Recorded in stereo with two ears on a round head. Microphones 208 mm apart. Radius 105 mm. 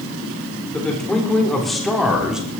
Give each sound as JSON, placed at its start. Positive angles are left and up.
{"t": 0.7, "sound": "a man speaking", "side_deg": 5, "distance_m": 4.0}